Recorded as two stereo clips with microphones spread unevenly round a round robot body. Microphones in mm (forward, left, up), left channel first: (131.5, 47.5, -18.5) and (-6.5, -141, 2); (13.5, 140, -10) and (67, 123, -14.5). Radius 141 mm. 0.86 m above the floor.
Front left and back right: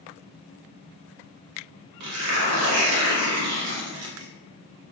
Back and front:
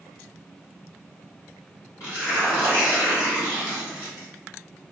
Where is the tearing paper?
145° right, 0.6 m.